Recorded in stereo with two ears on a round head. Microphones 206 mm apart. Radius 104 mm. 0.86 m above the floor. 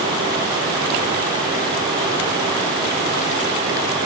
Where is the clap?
I don't hear a clap.